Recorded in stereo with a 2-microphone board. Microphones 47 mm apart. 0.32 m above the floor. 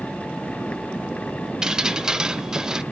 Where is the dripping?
15° right (ahead or behind), 0.6 m.